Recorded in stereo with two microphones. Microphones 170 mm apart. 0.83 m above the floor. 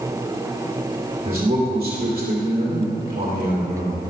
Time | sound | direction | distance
1.2 | a man speaking | 55° right (ahead or behind) | 2.5 m